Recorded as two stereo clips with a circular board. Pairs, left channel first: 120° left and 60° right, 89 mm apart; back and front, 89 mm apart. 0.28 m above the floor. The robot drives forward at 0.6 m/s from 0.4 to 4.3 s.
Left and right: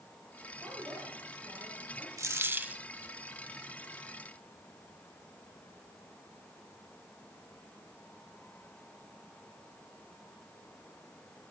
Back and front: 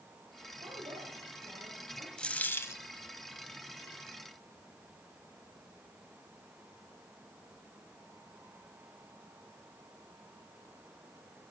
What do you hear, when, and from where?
0.6 s a woman speaking: 5° right, 7.5 m
2.2 s a dropped coin: 100° right, 0.7 m; by 2.8 s 135° right, 0.9 m